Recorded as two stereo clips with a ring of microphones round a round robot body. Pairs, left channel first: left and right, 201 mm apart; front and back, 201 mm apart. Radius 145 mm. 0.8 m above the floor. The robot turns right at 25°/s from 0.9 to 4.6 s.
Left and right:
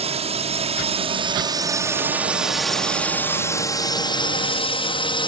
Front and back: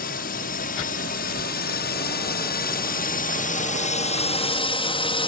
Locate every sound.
0.0 s a drone: 40° right; by 5.3 s 45° left